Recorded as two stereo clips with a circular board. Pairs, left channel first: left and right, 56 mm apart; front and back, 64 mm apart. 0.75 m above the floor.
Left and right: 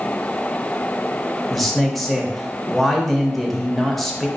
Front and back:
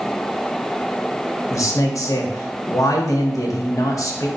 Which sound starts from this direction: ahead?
A man speaking, at 1.5 s.